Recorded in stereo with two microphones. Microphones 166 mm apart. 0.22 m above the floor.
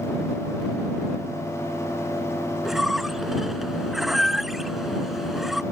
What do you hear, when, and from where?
2.6 s a squeak: centre (ahead or behind)